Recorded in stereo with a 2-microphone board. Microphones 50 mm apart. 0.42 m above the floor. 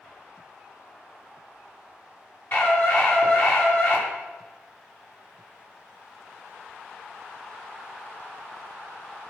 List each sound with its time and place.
2.5 s a scream: 45° left (ahead or behind), 6.5 m